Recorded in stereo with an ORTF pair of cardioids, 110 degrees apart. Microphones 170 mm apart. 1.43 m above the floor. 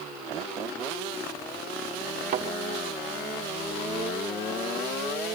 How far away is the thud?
About 2.5 m.